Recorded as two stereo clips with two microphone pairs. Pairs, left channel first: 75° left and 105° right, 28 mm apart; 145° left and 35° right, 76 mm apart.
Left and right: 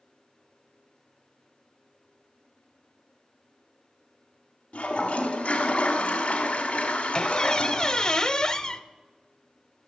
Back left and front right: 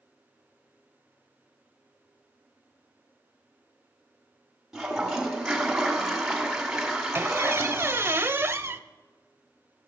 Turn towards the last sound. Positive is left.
turn(degrees=20)